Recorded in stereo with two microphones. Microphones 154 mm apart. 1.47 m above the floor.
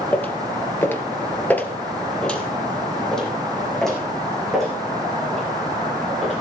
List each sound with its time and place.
0.1 s footsteps: 10° left (ahead or behind), 1.9 m; by 6.4 s centre (ahead or behind), 9 m